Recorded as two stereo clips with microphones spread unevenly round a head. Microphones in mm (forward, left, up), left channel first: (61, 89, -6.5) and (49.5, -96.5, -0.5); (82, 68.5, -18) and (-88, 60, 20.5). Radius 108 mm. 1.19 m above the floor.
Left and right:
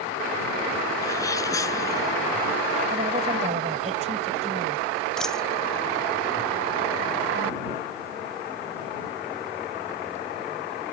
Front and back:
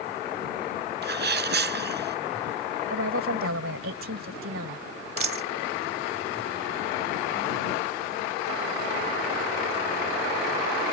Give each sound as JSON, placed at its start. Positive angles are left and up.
{"t": 1.0, "sound": "a sneeze", "azimuth_deg": 165}
{"t": 2.9, "sound": "a woman speaking", "azimuth_deg": -155}
{"t": 5.2, "sound": "a dropped coin", "azimuth_deg": 175}